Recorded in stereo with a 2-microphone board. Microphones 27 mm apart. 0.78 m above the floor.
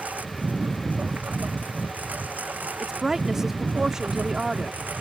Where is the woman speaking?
20° right (ahead or behind).